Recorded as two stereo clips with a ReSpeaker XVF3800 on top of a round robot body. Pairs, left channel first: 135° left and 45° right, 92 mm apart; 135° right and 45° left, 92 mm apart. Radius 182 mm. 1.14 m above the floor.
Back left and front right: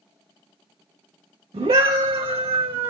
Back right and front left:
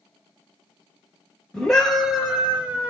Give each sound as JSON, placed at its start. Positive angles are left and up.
{"t": 1.5, "sound": "a scream", "azimuth_deg": -50, "distance_m": 1.6}